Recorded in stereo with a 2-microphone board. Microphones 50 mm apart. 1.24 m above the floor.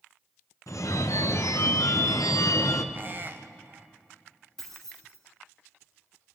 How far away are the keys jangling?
About 2.5 m.